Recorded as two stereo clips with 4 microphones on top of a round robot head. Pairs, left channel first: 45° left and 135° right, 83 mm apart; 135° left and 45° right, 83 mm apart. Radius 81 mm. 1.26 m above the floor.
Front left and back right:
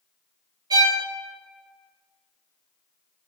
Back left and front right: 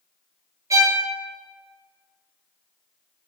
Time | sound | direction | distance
0.7 | a violin | 95° right | 0.6 m